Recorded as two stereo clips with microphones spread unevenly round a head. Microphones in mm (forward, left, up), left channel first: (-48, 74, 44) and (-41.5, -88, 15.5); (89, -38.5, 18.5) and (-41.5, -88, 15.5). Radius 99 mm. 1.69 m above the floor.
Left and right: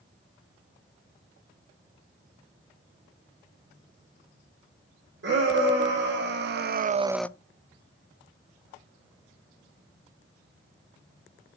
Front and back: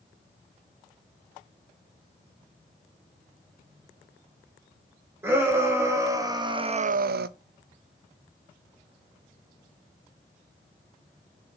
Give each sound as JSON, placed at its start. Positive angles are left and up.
{"t": 5.2, "sound": "a shout", "azimuth_deg": -85, "distance_m": 2.5}